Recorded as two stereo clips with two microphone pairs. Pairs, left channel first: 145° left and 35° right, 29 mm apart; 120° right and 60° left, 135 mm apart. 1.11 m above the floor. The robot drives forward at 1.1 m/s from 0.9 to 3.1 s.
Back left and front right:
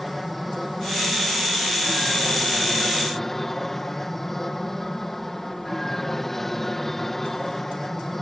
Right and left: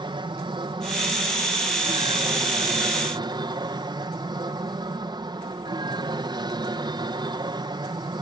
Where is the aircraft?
60° left; by 8.2 s 70° left.